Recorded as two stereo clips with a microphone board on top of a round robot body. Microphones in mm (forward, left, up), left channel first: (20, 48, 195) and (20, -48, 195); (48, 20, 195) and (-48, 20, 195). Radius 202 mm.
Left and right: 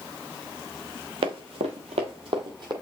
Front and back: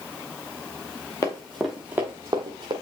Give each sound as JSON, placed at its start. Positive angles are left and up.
{"t": 1.2, "sound": "running footsteps", "azimuth_deg": -60, "distance_m": 0.7}